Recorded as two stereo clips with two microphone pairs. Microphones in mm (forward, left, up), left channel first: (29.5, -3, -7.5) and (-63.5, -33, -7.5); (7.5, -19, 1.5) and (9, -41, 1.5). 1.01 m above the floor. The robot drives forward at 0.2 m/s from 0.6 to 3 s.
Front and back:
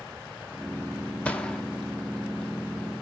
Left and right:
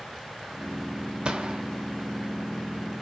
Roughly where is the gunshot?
Ahead right.